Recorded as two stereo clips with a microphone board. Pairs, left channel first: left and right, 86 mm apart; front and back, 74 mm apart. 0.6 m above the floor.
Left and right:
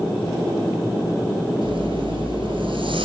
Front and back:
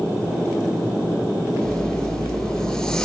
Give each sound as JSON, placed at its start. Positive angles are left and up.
{"t": 1.6, "sound": "a zipper", "azimuth_deg": -85, "distance_m": 6.0}